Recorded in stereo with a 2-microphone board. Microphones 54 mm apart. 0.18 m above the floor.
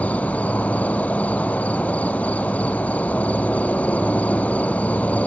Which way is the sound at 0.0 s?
30° left (ahead or behind).